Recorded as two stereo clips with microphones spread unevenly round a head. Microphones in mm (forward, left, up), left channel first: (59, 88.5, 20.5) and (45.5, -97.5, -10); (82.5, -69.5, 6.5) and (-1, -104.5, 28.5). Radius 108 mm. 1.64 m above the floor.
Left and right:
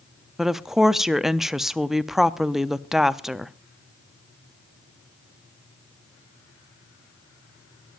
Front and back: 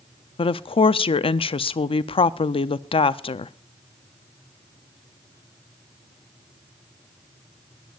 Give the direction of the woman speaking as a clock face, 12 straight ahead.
12 o'clock.